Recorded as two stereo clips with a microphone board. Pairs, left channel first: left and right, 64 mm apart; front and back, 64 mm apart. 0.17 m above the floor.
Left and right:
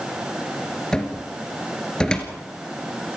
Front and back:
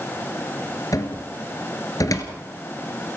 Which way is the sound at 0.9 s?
15° left.